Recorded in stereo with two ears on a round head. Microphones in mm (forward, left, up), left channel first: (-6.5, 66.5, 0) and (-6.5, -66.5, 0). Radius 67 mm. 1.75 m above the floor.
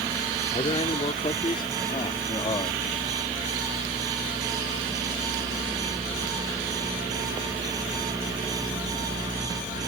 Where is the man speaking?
35° left (ahead or behind); by 2.8 s 30° left (ahead or behind).